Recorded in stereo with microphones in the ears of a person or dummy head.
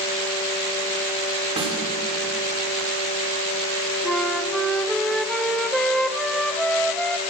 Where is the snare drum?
25° right (ahead or behind), 3.5 m.